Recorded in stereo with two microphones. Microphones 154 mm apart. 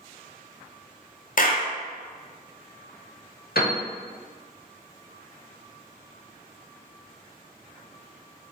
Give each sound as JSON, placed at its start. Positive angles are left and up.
{"t": 1.4, "sound": "a clap", "side_deg": 60, "distance_m": 0.6}
{"t": 3.5, "sound": "a piano", "side_deg": 80, "distance_m": 0.8}